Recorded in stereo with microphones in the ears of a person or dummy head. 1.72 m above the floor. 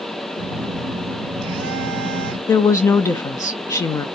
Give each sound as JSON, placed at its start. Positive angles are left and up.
{"t": 0.4, "sound": "a phone buzzing", "side_deg": -65, "distance_m": 0.9}
{"t": 2.5, "sound": "a woman speaking", "side_deg": 15, "distance_m": 0.5}